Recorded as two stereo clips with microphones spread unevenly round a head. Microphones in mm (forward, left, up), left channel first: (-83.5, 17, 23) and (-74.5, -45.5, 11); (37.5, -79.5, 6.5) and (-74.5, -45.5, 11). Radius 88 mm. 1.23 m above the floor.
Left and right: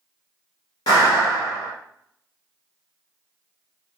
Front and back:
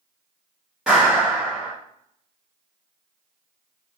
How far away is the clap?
About 0.9 m.